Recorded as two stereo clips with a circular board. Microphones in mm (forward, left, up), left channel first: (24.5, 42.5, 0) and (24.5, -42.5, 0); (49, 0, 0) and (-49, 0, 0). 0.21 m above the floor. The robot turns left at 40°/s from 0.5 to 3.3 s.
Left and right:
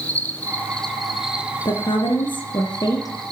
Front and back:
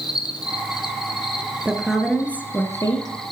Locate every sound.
0.0 s an insect: 25° left, 2.5 m; by 3.3 s 90° right, 2.5 m
1.6 s a woman speaking: 105° left, 3 m; by 3.3 s 35° left, 3 m